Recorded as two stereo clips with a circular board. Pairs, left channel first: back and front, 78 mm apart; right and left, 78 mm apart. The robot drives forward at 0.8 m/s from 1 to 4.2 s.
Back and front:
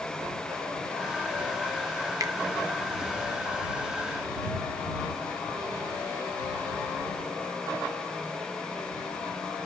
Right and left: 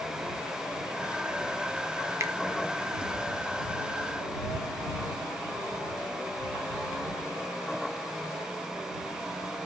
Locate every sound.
2.2 s a finger snap: 40° left, 0.6 m; by 2.3 s 50° left, 0.5 m